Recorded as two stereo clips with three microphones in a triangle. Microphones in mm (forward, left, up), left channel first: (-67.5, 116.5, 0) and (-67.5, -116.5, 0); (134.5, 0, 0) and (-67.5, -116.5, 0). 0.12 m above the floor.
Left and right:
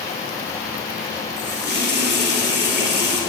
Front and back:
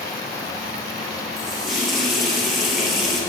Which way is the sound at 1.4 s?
60° right.